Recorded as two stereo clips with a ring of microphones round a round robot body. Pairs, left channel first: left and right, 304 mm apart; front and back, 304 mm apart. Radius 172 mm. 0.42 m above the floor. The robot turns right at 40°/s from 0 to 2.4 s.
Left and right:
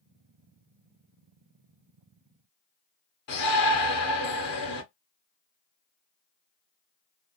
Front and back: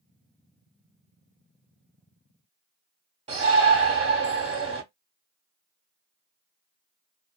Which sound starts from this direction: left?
A shout, at 3.3 s.